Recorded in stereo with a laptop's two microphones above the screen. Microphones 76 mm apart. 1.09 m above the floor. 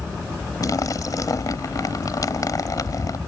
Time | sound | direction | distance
0.6 | a splash | 50° left (ahead or behind) | ?